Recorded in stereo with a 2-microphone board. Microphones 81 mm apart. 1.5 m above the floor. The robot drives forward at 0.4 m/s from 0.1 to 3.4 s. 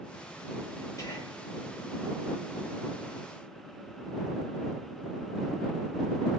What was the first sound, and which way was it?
Whispering, 35° left (ahead or behind).